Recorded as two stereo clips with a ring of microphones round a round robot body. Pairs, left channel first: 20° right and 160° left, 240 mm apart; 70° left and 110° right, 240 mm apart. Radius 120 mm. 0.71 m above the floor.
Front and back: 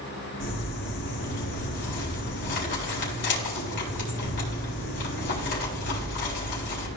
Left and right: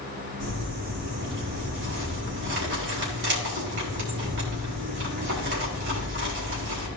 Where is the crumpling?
70° right, 4 m.